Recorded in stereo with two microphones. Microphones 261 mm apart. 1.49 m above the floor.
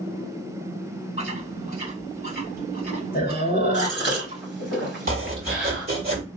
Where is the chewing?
35° left (ahead or behind), 1.7 m.